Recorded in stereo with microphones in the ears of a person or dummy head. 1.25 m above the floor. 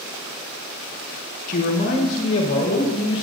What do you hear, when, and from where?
1.5 s a man speaking: 50° left (ahead or behind), 1.1 m; by 3.2 s 35° left (ahead or behind), 2.5 m